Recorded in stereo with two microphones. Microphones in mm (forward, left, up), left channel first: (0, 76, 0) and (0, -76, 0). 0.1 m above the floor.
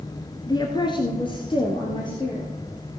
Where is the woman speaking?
25° left (ahead or behind), 1.2 m; by 2.5 s 30° left (ahead or behind), 2.5 m.